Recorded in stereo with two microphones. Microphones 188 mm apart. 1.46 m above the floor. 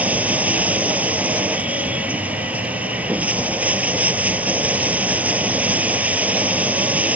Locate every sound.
0.0 s running water: 5° right (ahead or behind)